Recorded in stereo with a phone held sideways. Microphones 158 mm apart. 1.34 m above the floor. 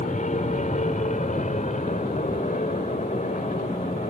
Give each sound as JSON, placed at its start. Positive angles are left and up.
{"t": 0.0, "sound": "an aircraft", "side_deg": 50}